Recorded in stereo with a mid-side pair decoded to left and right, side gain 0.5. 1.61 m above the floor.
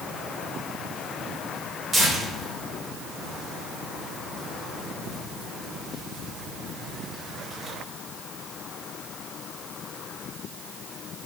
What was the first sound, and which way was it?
Tearing paper, 45° right.